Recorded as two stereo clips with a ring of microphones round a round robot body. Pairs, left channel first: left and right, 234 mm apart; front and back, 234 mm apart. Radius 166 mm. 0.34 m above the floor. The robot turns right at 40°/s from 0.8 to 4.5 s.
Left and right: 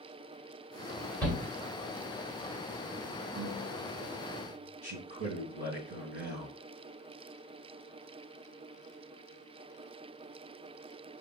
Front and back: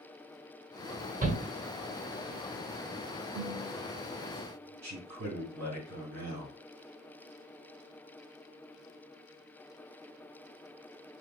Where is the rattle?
No rattle in this recording.